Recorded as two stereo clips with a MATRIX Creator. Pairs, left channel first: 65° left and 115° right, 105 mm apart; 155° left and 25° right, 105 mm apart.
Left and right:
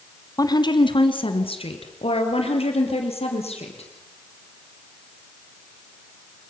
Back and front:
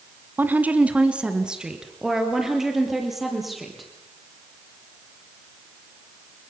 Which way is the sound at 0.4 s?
40° left.